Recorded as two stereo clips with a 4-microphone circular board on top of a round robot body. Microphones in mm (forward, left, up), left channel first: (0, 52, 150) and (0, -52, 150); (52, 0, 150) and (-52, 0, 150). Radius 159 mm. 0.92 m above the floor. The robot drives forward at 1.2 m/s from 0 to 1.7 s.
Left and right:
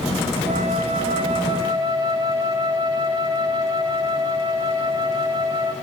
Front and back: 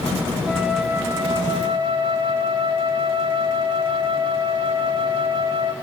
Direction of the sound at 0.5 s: 80° right.